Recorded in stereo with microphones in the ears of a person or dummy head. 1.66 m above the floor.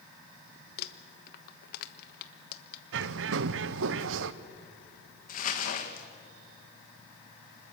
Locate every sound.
0.8 s crumpling: 55° left (ahead or behind), 1.2 m
2.9 s a bird: 75° right (ahead or behind), 0.8 m
5.3 s crumpling: 55° left (ahead or behind), 1.9 m